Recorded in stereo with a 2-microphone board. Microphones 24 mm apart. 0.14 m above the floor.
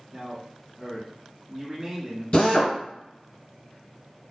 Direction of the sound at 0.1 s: 10° right (ahead or behind).